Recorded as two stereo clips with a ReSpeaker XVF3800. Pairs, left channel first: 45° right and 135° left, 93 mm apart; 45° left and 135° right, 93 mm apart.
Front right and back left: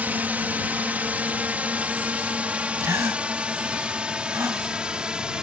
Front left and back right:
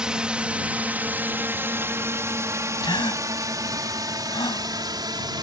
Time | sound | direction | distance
0.0 | a drone | 160° left | ?
2.8 | a gasp | 75° left | ?